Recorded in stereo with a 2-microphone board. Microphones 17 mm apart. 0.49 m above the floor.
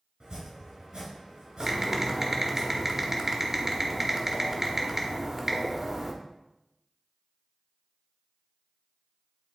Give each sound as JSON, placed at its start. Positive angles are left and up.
{"t": 0.2, "sound": "chopping", "side_deg": -70, "distance_m": 3.5}
{"t": 1.6, "sound": "typing on a keyboard", "side_deg": -25, "distance_m": 1.1}